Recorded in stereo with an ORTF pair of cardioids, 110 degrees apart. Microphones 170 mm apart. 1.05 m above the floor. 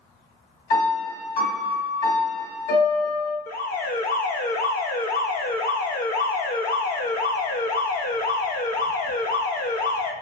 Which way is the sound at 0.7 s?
65° left.